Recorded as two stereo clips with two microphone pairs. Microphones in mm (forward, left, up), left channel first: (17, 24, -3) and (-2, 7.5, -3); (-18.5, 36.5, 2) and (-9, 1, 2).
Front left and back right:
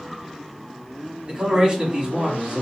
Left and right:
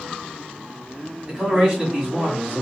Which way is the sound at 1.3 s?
130° right.